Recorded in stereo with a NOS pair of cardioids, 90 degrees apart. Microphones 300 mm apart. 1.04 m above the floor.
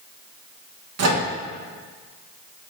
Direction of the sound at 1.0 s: 55° right.